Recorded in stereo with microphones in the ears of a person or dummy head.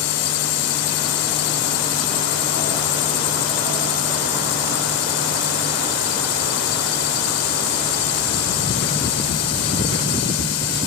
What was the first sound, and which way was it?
A drone, 70° left (ahead or behind).